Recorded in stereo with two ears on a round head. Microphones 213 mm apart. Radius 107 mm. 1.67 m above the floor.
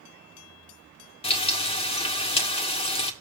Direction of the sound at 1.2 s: 25° left (ahead or behind).